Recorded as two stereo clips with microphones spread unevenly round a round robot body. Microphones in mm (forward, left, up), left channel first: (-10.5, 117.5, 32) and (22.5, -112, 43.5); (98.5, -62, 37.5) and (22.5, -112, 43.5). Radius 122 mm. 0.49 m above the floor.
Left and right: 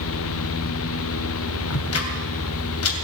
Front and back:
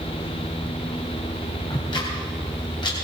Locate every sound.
1.7 s ticking: 80° left, 2.5 m